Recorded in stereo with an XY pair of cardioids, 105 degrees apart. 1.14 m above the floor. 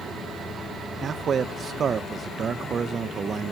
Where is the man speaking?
45° right, 0.8 m.